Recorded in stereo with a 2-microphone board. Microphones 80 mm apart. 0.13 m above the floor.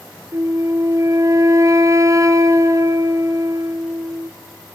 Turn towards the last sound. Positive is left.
turn(degrees=-45)  # may be behind; listen again after turning